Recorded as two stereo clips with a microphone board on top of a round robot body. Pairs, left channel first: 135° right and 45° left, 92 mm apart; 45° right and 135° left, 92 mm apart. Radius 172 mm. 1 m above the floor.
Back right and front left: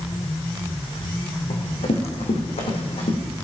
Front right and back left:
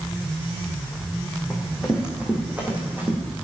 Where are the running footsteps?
140° right, 4 m; by 3.2 s 155° right, 4 m.